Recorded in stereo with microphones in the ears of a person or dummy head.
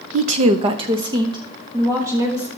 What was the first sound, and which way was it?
A woman speaking, 50° right (ahead or behind).